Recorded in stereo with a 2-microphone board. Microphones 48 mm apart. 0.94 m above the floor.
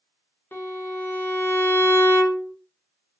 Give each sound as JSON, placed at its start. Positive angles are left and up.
{"t": 0.5, "sound": "a violin", "side_deg": 45, "distance_m": 0.7}